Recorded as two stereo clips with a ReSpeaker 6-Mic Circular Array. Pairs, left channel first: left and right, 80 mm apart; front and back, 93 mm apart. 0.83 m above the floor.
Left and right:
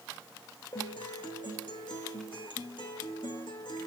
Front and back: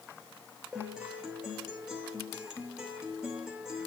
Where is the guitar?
100° left, 2.5 m.